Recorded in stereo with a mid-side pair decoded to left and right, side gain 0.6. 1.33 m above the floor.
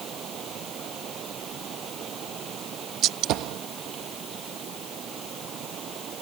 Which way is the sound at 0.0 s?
45° right.